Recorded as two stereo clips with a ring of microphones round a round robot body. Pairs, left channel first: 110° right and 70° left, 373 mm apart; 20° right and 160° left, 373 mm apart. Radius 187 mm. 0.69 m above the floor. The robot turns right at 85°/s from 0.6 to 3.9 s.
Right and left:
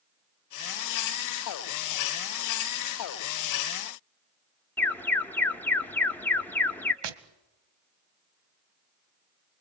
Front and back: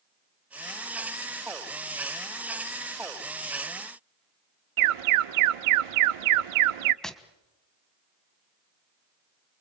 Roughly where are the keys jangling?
I don't hear keys jangling.